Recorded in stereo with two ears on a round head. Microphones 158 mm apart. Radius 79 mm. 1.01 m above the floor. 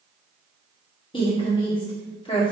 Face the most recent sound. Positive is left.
turn(degrees=30)  # may be behind; listen again after turning